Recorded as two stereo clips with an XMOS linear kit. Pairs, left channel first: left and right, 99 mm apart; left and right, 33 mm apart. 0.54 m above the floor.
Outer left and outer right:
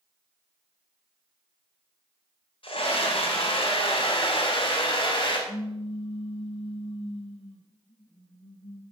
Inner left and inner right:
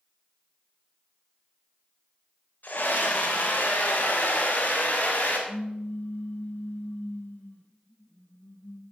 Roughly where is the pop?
Left.